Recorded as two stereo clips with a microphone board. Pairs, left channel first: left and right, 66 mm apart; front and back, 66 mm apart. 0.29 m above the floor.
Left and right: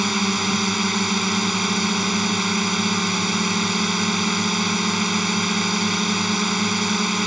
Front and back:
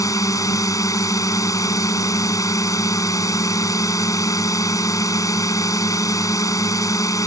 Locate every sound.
0.0 s a drone: 5° right